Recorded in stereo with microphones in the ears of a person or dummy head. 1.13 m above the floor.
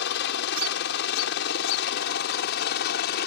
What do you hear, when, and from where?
0.0 s a helicopter: 60° left (ahead or behind); by 3.3 s 55° left (ahead or behind)